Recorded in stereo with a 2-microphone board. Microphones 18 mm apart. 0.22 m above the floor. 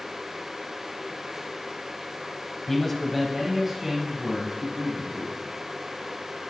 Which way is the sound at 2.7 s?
20° left (ahead or behind).